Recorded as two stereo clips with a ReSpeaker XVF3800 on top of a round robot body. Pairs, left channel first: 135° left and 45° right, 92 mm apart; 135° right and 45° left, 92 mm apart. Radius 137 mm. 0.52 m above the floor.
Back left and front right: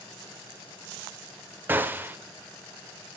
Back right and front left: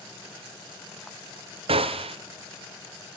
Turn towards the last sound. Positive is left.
turn(degrees=25)